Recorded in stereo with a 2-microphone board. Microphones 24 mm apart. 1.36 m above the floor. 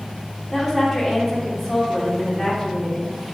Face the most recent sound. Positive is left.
turn(degrees=5)  # may be behind; listen again after turning